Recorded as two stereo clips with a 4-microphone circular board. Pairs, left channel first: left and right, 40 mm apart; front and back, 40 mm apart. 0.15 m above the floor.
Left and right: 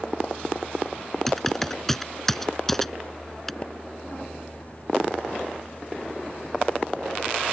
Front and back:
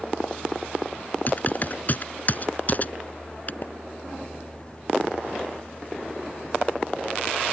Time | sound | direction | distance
1.3 | typing on a keyboard | 10° left | ?
3.6 | a splash | 35° left | ?